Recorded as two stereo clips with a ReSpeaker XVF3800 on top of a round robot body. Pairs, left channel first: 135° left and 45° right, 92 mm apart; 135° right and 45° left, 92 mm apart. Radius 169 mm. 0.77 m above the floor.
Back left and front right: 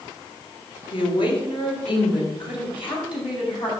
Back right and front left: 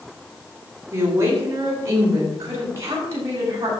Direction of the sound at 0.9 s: 105° left.